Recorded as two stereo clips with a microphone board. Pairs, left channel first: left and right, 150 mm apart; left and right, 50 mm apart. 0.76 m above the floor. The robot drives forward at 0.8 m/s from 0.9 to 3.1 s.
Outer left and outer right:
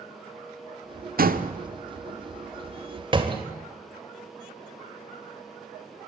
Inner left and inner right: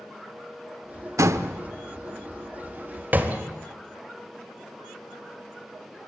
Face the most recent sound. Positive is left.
turn(degrees=-35)  # may be behind; listen again after turning